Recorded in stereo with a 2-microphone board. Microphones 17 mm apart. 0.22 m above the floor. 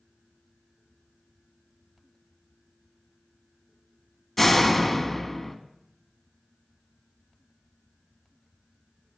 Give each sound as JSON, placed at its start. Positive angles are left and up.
{"t": 4.4, "sound": "a door slam", "side_deg": 5, "distance_m": 1.3}